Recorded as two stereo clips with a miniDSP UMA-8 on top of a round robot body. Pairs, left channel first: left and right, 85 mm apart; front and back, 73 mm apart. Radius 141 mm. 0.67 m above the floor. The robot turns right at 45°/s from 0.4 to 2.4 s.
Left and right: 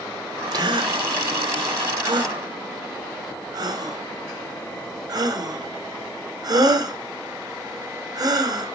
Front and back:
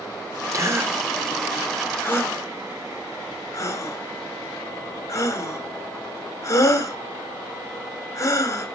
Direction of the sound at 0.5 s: 135° right.